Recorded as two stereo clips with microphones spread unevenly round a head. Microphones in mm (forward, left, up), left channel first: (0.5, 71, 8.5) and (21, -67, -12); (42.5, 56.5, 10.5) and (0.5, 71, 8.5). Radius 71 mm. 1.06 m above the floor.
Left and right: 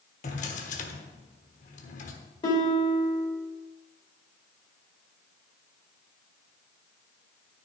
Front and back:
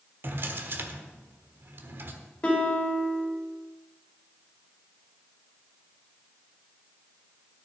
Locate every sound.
0.2 s a drawer: 130° left, 1.2 m
2.4 s a guitar: 45° left, 2.5 m